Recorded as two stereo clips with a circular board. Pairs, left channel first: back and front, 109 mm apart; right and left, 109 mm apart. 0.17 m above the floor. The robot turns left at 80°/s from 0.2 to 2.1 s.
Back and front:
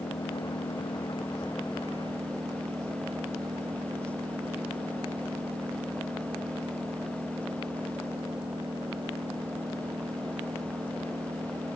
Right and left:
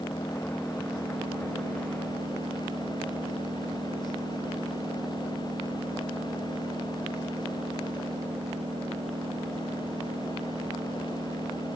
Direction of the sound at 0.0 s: 155° right.